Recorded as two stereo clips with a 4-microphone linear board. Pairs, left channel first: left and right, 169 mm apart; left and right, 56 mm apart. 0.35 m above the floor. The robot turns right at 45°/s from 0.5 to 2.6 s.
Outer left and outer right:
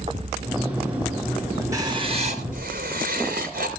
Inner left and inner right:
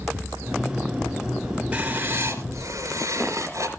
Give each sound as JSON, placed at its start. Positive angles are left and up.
{"t": 1.7, "sound": "writing", "azimuth_deg": -160, "distance_m": 3.0}